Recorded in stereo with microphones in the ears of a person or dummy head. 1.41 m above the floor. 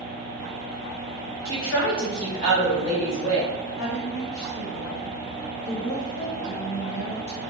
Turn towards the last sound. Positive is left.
turn(degrees=85)